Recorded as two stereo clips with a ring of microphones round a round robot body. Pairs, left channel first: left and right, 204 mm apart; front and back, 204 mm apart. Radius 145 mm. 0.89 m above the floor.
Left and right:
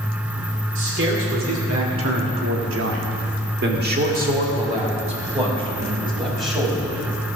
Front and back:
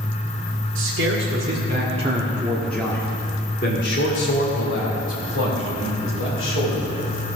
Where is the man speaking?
135° right, 2.5 m; by 7.0 s 20° right, 4 m.